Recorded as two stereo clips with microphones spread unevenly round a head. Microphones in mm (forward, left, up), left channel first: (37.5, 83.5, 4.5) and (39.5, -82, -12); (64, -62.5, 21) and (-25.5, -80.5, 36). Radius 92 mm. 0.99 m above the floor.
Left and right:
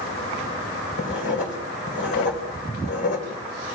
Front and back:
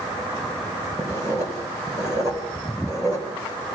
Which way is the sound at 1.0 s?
120° left.